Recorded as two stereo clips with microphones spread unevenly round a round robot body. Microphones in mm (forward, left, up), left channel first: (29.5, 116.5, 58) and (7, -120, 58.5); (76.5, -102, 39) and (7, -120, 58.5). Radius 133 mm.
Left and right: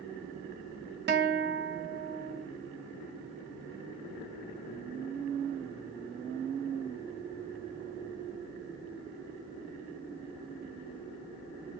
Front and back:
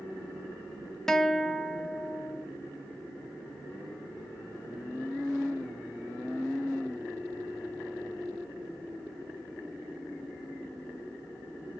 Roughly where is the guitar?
Ahead right.